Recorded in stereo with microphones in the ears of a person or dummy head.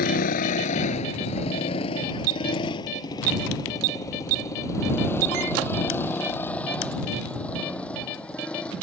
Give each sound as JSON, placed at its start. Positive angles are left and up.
{"t": 0.0, "sound": "a motorcycle", "side_deg": 50}